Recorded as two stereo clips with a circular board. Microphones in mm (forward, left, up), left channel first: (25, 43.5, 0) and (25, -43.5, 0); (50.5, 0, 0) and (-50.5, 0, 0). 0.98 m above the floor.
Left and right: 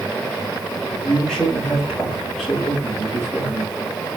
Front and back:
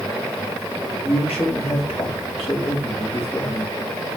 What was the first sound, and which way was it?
A man speaking, 5° left.